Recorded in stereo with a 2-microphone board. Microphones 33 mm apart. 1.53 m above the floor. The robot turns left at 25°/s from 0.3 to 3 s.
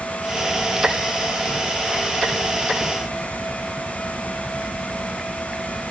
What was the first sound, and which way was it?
Only background noise.